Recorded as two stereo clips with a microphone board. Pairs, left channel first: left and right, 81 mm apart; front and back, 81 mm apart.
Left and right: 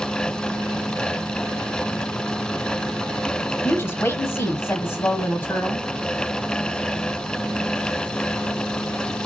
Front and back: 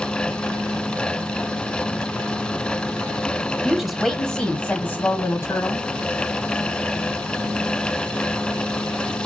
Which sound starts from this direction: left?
A woman speaking, at 3.6 s.